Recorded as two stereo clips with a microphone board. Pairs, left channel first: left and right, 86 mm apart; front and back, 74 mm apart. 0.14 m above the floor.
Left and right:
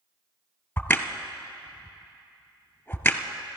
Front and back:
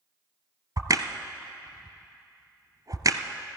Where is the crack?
160° left, 0.8 m.